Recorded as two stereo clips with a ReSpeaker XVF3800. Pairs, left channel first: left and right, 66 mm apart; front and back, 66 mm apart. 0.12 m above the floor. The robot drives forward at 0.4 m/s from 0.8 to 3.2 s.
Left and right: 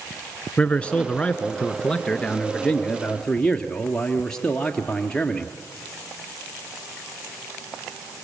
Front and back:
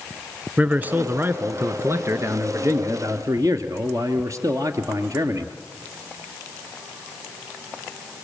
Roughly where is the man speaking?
Behind left.